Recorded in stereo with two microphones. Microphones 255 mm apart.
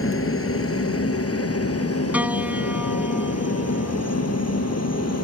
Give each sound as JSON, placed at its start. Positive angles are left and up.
{"t": 0.0, "sound": "a helicopter", "side_deg": 55}
{"t": 2.1, "sound": "a piano", "side_deg": -5}